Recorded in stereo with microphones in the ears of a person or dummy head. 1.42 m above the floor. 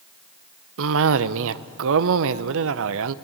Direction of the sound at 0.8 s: 75° right (ahead or behind).